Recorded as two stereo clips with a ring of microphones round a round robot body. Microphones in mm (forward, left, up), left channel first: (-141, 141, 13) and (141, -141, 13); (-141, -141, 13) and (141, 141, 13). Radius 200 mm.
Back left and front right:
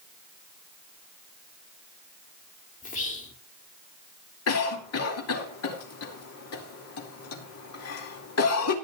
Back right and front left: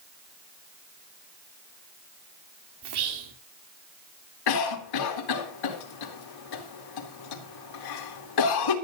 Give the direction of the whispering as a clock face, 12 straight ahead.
10 o'clock.